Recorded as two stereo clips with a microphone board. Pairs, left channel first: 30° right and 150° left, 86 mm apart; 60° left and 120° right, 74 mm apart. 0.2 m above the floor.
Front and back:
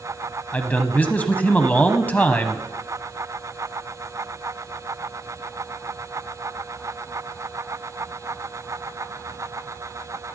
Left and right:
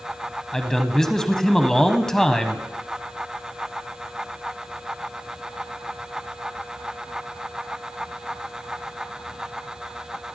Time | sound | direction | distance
0.5 | a man speaking | 5° right | 1.1 m